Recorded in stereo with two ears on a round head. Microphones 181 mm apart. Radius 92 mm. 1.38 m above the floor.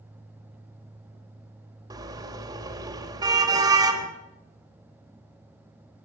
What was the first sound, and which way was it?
A car horn, 20° right (ahead or behind).